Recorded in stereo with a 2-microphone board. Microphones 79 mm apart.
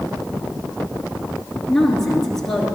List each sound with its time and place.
1.7 s a woman speaking: 5° left (ahead or behind), 3 m